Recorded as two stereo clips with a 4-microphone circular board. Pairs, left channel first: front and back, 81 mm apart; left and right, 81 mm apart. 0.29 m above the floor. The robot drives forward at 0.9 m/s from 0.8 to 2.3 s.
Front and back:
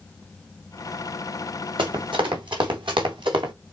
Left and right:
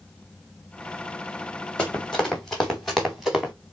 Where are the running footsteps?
170° left, 2.5 m; by 3.5 s 175° right, 2.5 m.